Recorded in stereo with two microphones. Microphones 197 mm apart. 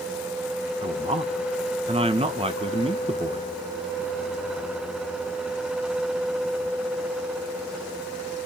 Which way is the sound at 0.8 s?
30° right (ahead or behind).